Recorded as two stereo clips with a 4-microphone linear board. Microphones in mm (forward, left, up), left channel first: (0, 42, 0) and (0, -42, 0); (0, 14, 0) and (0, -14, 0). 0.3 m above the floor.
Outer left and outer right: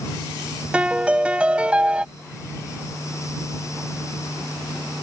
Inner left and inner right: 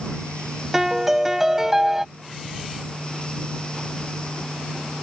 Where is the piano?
15° right (ahead or behind).